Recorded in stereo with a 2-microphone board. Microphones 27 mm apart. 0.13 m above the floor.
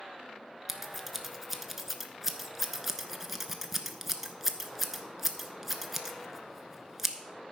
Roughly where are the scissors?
Centre.